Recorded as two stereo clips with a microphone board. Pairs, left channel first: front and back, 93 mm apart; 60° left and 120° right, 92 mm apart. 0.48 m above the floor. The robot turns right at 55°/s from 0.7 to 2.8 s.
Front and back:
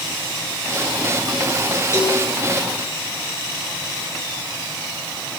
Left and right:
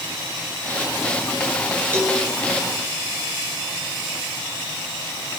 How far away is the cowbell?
About 5 m.